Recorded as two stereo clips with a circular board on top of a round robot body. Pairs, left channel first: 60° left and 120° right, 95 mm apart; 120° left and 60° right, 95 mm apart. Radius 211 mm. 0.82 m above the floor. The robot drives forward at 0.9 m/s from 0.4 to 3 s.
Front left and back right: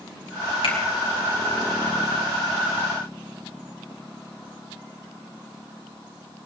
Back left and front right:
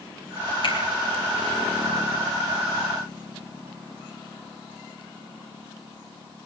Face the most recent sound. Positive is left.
turn(degrees=110)